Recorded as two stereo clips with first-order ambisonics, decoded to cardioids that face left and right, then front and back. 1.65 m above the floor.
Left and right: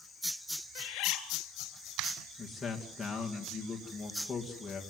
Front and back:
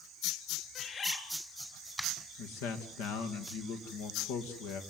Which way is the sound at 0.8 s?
65° left.